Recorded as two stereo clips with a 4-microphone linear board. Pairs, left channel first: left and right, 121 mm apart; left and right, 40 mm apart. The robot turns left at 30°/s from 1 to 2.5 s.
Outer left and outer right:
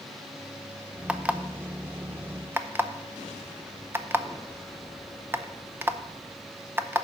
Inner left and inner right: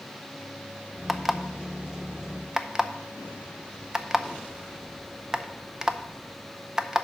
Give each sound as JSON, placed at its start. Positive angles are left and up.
{"t": 1.1, "sound": "an alarm clock", "side_deg": -10, "distance_m": 0.5}